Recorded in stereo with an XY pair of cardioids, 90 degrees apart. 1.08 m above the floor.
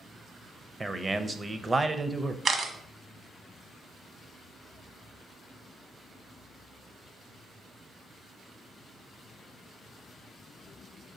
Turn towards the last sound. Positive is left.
turn(degrees=-50)